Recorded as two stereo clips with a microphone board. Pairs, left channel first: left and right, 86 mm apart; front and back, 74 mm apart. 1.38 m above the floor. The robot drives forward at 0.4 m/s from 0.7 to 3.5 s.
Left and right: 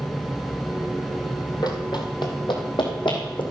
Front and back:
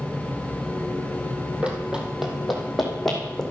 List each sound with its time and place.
1.6 s running footsteps: 110° left, 2.5 m; by 3.4 s 85° left, 4.5 m